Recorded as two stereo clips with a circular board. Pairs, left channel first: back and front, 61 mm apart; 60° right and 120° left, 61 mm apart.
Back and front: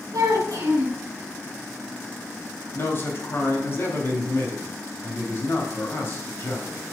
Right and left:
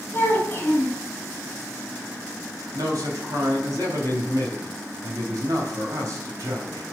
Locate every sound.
0.1 s a child speaking: 5° right, 2 m
2.7 s a man speaking: 135° left, 3 m